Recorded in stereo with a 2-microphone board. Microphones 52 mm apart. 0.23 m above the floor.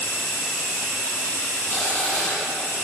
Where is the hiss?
20° left (ahead or behind), 8.5 m.